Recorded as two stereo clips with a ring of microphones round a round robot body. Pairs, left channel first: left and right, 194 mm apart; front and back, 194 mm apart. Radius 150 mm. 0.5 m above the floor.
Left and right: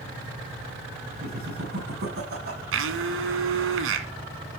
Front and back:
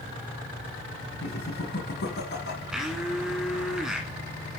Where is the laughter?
45° right, 5.5 m.